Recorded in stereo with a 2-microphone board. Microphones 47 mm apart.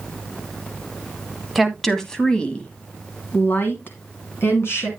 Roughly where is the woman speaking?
Centre.